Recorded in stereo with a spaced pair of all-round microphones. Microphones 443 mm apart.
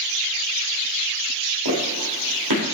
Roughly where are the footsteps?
Right.